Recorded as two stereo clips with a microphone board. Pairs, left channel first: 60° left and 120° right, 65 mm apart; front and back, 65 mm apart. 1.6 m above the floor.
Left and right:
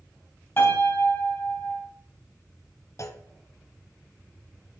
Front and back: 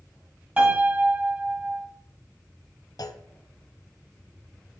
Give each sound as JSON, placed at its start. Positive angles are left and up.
{"t": 0.6, "sound": "a piano", "azimuth_deg": 110, "distance_m": 3.0}
{"t": 3.0, "sound": "a clunk", "azimuth_deg": 15, "distance_m": 0.7}